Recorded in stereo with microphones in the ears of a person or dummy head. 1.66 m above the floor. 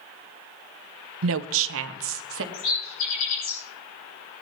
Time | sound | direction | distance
1.2 | a woman speaking | 75° right (ahead or behind) | 0.5 m
2.5 | a bird | 80° left | 6 m